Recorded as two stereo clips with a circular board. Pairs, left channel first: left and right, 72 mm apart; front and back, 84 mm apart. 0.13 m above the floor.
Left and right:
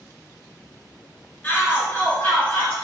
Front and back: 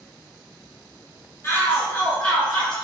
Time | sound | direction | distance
1.4 | a shout | 35° left | 1.6 m